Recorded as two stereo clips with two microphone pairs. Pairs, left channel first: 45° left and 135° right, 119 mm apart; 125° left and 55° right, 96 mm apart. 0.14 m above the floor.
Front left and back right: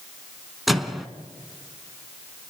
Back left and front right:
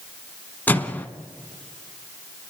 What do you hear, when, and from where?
0.7 s a microwave: 135° left, 0.8 m